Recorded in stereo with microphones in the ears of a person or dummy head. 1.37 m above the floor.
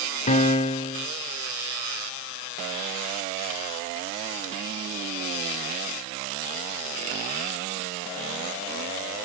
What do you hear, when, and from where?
0.3 s a piano: 40° left (ahead or behind), 0.7 m